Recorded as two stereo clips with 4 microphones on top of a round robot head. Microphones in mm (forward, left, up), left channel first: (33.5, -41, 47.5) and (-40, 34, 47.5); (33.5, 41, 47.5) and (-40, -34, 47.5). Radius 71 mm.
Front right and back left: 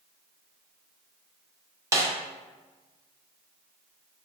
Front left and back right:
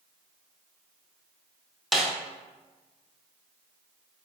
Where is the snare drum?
135° left, 0.7 m.